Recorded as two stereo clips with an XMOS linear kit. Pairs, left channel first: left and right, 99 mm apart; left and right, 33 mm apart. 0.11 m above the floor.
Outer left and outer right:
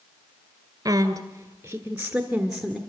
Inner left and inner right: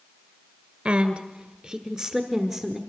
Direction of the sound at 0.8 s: 35° right (ahead or behind).